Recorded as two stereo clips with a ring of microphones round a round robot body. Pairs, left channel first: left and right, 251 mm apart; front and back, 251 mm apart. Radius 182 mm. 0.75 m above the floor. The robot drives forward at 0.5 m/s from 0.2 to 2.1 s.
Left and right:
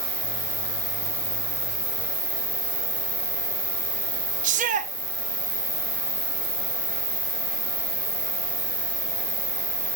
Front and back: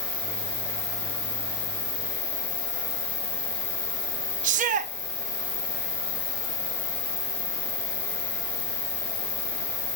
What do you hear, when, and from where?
0.0 s an insect: straight ahead, 4 m
4.4 s a shout: 135° right, 0.6 m